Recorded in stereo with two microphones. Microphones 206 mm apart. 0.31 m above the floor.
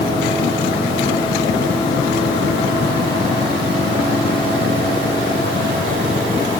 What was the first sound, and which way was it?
Only background noise.